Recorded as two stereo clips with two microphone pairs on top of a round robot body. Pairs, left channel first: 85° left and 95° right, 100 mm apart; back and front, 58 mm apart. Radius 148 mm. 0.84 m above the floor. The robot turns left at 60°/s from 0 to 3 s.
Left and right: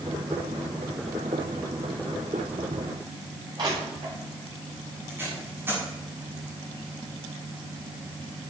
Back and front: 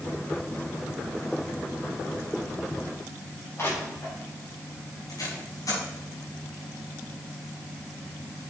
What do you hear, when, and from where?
3.6 s crushing: 135° right, 6.5 m
5.1 s tape being pulled: 165° right, 6 m